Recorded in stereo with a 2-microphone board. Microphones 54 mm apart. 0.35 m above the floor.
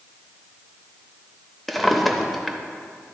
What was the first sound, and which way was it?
A drawer, centre (ahead or behind).